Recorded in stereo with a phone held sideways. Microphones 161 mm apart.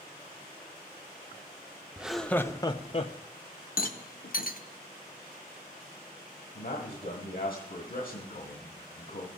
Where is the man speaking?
65° left (ahead or behind), 1.7 m.